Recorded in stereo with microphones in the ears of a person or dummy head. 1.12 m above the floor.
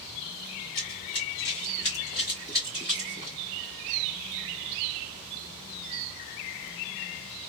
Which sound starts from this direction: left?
Running footsteps, at 0.8 s.